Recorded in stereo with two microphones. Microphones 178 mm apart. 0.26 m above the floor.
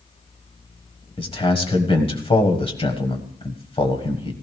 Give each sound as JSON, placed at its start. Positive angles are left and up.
{"t": 1.2, "sound": "a man speaking", "side_deg": 30, "distance_m": 1.5}